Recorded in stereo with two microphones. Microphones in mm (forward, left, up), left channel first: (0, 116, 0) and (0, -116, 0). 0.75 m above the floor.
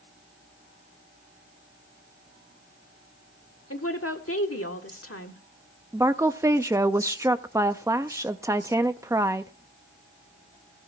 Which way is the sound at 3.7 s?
70° left (ahead or behind).